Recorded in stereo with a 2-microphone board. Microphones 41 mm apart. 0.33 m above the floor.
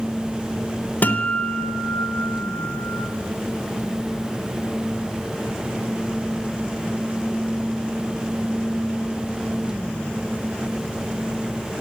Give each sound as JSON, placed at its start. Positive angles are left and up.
{"t": 1.0, "sound": "a guitar", "side_deg": 50, "distance_m": 0.6}